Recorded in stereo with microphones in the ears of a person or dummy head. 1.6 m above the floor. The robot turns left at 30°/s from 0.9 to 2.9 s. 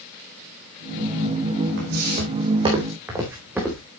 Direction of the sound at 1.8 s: 60° right (ahead or behind).